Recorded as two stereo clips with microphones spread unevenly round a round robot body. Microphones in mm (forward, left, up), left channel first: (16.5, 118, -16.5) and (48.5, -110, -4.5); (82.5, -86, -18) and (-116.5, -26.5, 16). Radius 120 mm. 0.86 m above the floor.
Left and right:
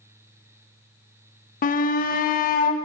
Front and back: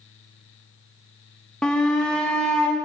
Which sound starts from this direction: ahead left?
A shout, at 1.6 s.